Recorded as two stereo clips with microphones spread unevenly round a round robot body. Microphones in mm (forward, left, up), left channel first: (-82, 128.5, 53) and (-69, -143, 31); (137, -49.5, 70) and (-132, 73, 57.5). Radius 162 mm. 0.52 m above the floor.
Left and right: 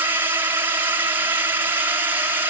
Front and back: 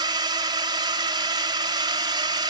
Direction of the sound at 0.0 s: 150° right.